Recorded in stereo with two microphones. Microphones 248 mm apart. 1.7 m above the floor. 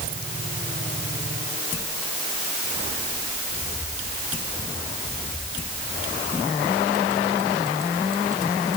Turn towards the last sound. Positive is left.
No sound to turn to.